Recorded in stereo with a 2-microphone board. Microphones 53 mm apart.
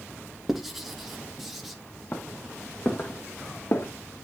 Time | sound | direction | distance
0.5 | writing | 5° right (ahead or behind) | 1.6 m
2.1 | footsteps | 45° left (ahead or behind) | 1.8 m